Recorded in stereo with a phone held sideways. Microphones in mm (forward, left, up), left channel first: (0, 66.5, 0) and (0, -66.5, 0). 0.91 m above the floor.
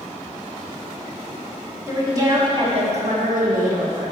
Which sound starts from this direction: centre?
A woman speaking, at 1.9 s.